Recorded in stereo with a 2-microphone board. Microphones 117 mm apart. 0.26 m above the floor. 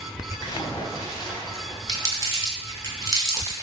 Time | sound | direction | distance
0.4 | a splash | 40° left (ahead or behind) | 0.8 m
1.9 | crumpling | 30° right (ahead or behind) | 1.2 m